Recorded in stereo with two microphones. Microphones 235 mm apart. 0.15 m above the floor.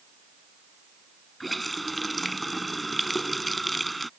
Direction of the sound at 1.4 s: Centre (ahead or behind).